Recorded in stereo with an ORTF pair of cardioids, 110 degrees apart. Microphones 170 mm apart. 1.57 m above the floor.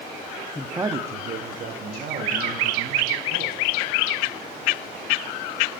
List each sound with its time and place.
0.6 s a man speaking: 10° left, 0.5 m; by 3.6 s 70° right, 4 m